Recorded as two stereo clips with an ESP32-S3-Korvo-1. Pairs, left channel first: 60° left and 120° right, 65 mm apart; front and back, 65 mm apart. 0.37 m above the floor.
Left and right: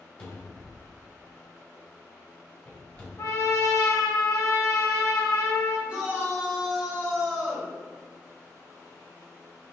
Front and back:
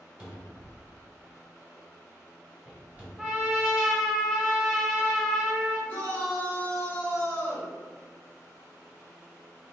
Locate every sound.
0.2 s a cupboard door: 120° left, 1.0 m
3.2 s a trumpet: 95° left, 0.7 m
5.9 s a shout: 60° right, 1.1 m